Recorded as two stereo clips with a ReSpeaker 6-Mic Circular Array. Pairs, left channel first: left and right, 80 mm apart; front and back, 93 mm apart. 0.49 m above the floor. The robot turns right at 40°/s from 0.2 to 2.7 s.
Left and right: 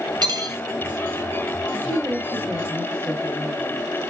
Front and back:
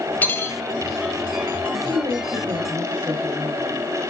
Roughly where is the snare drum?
No snare drum in this recording.